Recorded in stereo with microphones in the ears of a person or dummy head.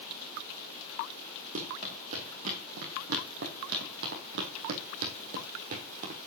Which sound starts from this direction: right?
Running footsteps, at 1.6 s.